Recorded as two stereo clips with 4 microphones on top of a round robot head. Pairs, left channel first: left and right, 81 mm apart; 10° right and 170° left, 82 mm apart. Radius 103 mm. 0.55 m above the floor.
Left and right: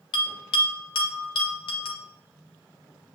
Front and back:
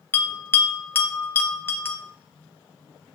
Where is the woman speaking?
No woman speaking in this recording.